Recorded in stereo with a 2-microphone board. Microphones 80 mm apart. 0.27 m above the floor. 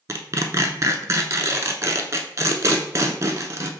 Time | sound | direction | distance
0.1 | tearing paper | 40° right (ahead or behind) | 0.6 m